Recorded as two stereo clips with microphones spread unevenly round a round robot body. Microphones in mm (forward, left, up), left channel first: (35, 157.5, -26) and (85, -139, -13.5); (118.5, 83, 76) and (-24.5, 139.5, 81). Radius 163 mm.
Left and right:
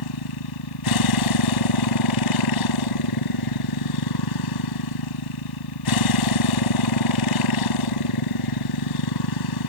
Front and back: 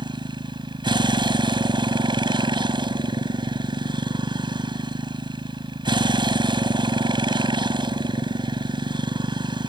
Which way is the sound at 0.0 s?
100° left.